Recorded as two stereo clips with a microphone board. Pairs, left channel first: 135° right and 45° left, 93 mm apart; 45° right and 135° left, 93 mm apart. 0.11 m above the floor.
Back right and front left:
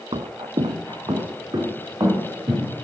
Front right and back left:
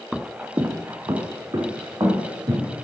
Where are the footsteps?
45° left, 0.5 m; by 2.7 s 95° left, 2.5 m.